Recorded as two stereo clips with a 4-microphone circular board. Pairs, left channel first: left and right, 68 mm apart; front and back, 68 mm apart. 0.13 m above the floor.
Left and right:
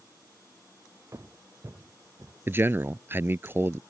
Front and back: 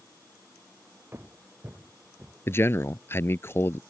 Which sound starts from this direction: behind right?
Footsteps, at 1.1 s.